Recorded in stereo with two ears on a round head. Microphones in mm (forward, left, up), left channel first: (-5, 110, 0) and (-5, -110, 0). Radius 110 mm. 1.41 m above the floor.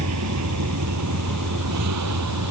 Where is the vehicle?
70° right (ahead or behind); by 2.5 s 80° right.